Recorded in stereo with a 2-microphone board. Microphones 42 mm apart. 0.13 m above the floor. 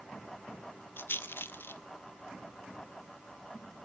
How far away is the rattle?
About 0.6 m.